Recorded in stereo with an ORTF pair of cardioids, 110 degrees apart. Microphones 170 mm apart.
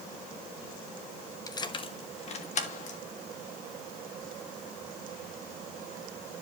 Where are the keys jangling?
20° left, 1.0 m; by 3.0 s 45° left, 2 m.